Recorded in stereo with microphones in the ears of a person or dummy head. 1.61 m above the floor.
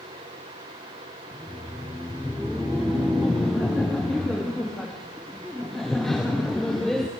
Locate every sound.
1.3 s laughter: centre (ahead or behind), 0.9 m